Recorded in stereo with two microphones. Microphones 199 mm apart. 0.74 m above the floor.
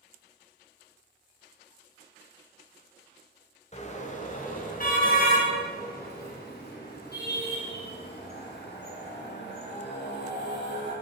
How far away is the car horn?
About 2.5 m.